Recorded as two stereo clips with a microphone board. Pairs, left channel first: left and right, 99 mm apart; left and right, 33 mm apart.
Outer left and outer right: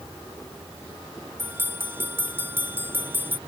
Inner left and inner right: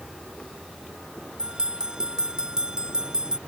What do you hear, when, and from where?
1.4 s a bell: 20° right (ahead or behind)